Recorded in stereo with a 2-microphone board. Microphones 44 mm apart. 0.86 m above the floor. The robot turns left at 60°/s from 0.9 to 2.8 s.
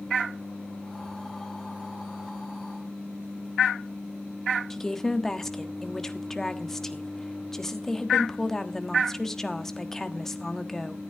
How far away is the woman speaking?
About 1.3 m.